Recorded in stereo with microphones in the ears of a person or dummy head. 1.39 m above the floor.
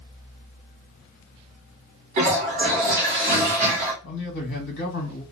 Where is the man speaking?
70° left (ahead or behind), 1.3 m.